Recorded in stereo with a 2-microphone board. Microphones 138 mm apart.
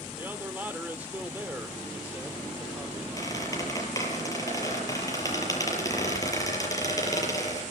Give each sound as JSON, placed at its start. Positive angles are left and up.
{"t": 0.2, "sound": "a man speaking", "side_deg": -15, "distance_m": 1.8}
{"t": 3.2, "sound": "a squeak", "side_deg": 25, "distance_m": 7.0}